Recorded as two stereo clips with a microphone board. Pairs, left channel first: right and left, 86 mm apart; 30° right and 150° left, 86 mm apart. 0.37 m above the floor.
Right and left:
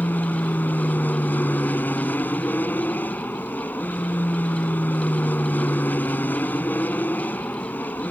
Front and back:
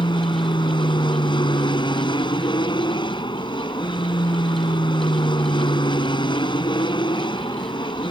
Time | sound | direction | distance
0.0 | an aircraft | 20° right | ?